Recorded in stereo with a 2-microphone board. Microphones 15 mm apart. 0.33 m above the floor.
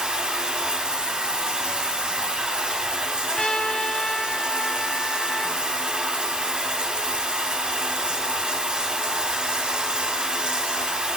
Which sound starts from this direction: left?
A trumpet, at 3.3 s.